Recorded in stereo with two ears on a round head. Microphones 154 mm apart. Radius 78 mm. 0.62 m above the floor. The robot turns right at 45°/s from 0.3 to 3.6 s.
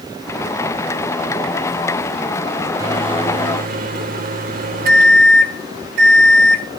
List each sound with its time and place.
2.8 s a microwave: 160° right, 1.8 m; by 6.7 s 120° right, 1.8 m